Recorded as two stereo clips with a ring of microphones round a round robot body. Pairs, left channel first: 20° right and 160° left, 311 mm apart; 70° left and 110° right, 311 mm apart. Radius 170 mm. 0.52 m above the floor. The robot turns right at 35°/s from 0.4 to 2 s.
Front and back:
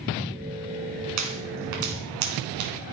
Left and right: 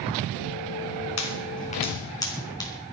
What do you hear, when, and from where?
1.2 s a pop: 115° left, 3.5 m; by 2.7 s 145° left, 3.5 m